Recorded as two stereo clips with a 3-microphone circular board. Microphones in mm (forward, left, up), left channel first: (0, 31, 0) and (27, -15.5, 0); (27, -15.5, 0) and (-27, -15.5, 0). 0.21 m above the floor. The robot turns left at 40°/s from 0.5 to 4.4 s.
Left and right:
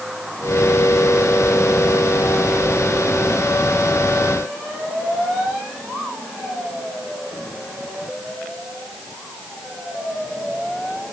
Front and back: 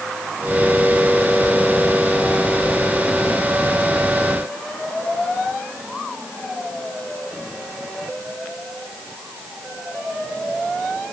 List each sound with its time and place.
Only background noise.